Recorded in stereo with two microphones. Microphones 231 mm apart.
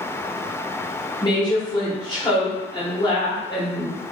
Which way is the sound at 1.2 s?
20° left (ahead or behind).